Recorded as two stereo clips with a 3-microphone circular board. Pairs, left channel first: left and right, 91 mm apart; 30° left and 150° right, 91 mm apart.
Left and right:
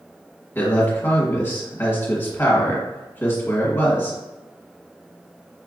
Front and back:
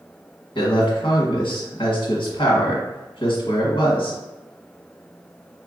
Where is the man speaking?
25° left, 1.4 m.